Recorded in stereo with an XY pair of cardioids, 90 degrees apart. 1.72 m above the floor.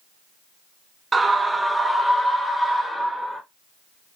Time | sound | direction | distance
1.1 | a scream | 35° right | 0.7 m